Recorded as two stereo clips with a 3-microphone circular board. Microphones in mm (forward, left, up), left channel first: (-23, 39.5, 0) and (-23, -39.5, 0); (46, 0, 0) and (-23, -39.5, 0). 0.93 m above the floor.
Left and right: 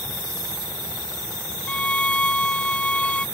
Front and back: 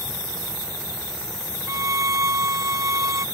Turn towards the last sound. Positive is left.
turn(degrees=165)